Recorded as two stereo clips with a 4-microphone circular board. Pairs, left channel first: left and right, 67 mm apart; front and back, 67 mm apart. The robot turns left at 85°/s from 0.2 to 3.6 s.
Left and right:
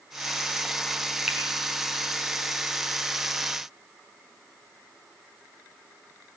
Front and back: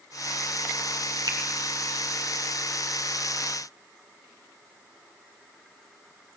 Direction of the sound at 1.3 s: 170° right.